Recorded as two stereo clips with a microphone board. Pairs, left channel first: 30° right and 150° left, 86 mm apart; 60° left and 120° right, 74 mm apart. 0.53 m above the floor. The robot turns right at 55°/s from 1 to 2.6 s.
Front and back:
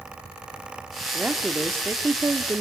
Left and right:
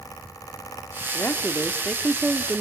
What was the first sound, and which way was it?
A woman speaking, 90° left.